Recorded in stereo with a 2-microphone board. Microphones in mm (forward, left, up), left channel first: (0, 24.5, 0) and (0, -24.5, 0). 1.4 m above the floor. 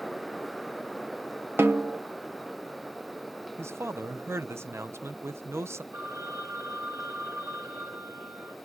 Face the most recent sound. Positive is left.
turn(degrees=-70)  # may be behind; listen again after turning